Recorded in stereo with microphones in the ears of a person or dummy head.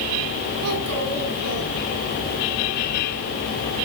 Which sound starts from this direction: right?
A child speaking, at 0.6 s.